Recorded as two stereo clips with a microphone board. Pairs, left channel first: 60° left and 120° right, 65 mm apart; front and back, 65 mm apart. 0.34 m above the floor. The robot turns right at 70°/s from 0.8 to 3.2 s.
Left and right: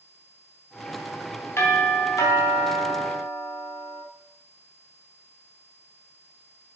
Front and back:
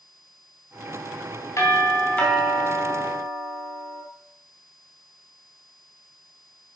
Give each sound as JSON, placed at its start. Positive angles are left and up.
{"t": 1.6, "sound": "a doorbell", "azimuth_deg": 25, "distance_m": 2.5}